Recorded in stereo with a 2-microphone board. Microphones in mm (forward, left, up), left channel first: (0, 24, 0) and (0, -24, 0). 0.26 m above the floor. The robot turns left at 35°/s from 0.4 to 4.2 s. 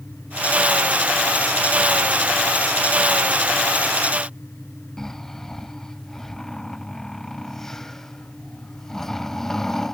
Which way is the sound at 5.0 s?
10° left (ahead or behind).